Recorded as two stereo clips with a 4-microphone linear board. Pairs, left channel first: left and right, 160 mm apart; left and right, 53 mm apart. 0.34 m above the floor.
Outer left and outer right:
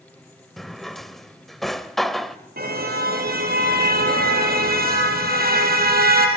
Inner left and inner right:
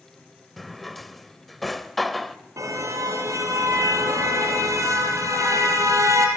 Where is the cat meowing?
I don't hear a cat meowing.